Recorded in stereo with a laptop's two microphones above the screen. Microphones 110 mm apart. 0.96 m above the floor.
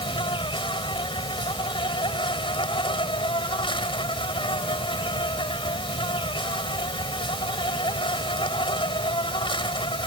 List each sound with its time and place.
0.0 s an insect: 50° left (ahead or behind)